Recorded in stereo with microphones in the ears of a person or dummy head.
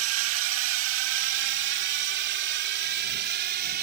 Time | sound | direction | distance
0.0 | a drone | 85° right | ?